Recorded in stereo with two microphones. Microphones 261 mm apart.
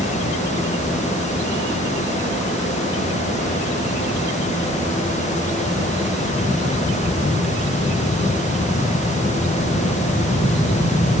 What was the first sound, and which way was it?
Only background noise.